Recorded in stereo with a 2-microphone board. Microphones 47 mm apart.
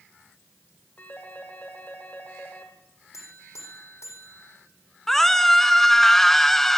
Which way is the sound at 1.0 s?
35° left (ahead or behind).